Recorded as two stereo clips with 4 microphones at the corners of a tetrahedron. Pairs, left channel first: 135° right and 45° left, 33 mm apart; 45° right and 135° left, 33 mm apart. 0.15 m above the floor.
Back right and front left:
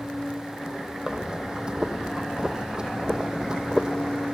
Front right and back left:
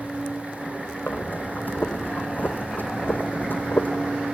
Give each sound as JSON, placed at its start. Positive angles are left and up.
{"t": 1.1, "sound": "breathing", "azimuth_deg": -20, "distance_m": 1.1}